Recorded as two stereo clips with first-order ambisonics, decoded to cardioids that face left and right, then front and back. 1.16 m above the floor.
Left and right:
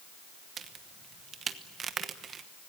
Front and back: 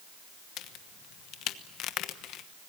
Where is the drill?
I don't hear a drill.